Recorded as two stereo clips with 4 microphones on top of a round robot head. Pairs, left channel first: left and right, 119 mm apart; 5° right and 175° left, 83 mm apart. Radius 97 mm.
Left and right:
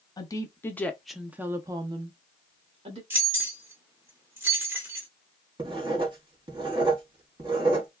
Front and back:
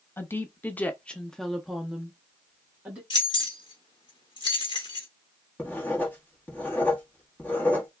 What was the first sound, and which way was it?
A woman speaking, 50° left.